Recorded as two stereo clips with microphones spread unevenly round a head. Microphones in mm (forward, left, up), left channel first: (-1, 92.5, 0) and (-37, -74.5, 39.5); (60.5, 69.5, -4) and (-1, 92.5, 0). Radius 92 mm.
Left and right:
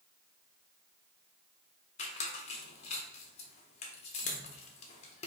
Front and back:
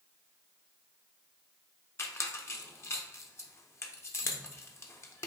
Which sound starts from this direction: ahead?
A squeak, at 2.0 s.